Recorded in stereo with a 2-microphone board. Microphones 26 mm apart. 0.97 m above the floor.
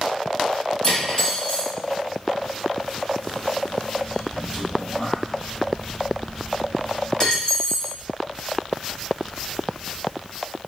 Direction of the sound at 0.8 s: 25° left (ahead or behind).